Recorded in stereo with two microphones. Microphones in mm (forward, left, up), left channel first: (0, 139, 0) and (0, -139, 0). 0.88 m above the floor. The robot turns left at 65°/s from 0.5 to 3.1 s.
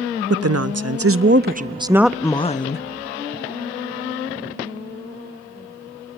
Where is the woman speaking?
75° right, 0.6 m; by 2.9 s 130° left, 0.6 m.